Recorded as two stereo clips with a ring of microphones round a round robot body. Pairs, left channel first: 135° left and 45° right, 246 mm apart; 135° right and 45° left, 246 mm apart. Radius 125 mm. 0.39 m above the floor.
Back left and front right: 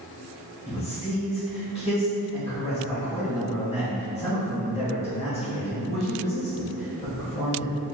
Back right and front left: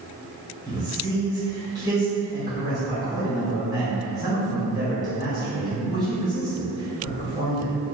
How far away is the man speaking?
About 1.6 m.